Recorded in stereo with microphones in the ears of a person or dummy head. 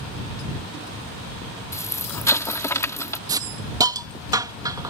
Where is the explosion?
20° left (ahead or behind).